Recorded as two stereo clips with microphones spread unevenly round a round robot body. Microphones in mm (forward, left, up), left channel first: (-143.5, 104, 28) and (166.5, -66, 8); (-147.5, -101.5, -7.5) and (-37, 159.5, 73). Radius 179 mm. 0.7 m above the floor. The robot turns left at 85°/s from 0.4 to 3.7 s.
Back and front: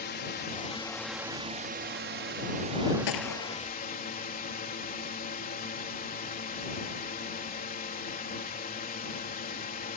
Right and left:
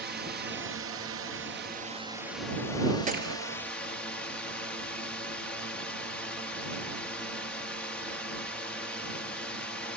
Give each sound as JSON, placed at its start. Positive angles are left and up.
{"t": 0.0, "sound": "a drone", "azimuth_deg": 120}
{"t": 3.1, "sound": "a gunshot", "azimuth_deg": 130}